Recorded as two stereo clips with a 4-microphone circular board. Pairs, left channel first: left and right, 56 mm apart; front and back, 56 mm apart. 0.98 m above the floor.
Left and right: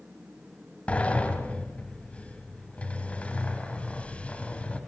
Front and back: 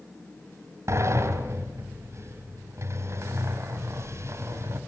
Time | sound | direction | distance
0.9 | a sliding door | 155° left | 2.5 m